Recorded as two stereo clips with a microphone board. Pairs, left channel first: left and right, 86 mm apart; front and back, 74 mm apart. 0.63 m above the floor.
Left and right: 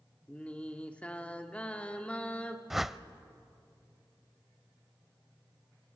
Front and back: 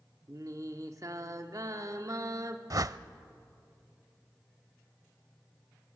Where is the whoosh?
175° right, 0.5 m.